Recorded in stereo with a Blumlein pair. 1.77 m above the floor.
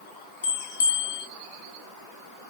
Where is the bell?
65° left, 1.2 m.